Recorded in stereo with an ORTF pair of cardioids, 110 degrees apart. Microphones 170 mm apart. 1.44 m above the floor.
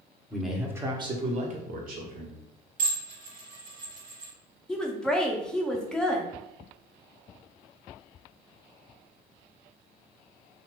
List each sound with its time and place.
0.3 s a man speaking: 5° left, 0.8 m; by 2.4 s 70° right, 1.3 m
2.8 s dishes clattering: 55° right, 1.5 m
4.7 s a woman speaking: 5° left, 0.6 m